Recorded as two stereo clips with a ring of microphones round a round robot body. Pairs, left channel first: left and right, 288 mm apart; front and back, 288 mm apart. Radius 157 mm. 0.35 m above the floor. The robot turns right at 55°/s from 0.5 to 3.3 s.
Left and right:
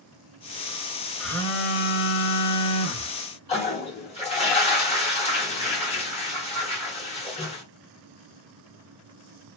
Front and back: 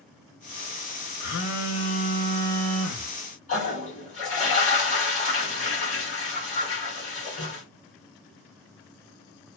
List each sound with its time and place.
1.2 s a phone buzzing: straight ahead, 1.0 m; by 3.1 s 105° left, 1.0 m
3.5 s a toilet flushing: 40° left, 1.5 m